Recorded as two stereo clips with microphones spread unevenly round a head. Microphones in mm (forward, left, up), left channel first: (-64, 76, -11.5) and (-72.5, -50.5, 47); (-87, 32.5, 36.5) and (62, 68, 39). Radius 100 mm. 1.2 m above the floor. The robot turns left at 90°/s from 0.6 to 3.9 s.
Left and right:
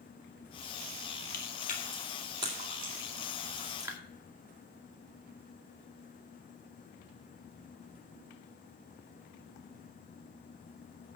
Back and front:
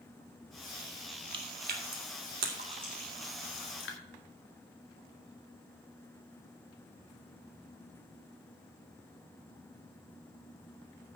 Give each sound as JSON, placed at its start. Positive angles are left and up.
{"t": 1.3, "sound": "chewing", "azimuth_deg": 70, "distance_m": 1.7}